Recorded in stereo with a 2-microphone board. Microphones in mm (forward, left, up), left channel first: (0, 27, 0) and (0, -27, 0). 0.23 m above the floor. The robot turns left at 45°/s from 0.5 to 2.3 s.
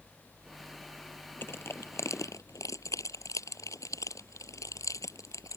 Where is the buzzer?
No buzzer in this recording.